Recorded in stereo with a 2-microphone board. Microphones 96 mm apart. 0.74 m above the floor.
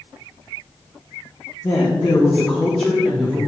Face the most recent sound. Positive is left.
turn(degrees=-5)  # may be behind; listen again after turning